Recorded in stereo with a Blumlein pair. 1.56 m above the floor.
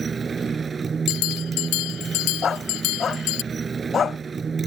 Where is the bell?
40° left.